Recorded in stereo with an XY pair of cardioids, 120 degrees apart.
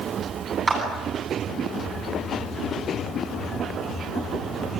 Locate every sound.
0.7 s a clap: 25° right, 10 m